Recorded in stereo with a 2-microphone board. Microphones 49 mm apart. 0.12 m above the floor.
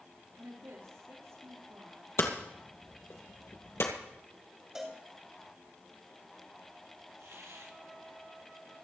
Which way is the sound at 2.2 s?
60° left (ahead or behind).